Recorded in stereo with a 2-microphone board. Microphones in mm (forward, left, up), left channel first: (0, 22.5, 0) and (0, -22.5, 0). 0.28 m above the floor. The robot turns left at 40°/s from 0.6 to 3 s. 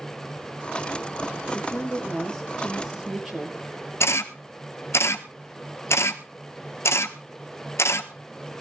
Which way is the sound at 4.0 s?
85° left.